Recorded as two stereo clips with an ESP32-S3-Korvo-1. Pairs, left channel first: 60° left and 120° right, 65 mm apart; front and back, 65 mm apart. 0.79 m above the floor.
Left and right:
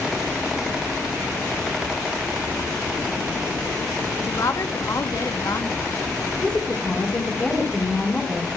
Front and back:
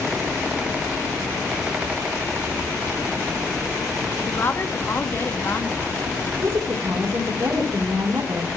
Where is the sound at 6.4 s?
140° left, 3.5 m.